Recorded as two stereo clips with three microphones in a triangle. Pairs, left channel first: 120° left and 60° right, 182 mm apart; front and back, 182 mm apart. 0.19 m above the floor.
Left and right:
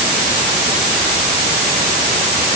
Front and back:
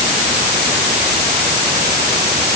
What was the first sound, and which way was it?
Only background noise.